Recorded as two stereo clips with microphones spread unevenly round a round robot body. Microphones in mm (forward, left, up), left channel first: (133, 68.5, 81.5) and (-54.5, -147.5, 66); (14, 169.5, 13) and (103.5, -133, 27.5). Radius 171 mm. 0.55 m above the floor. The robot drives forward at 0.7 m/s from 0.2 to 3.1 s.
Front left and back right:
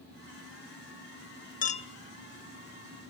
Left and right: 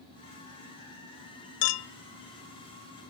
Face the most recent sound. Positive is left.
turn(degrees=155)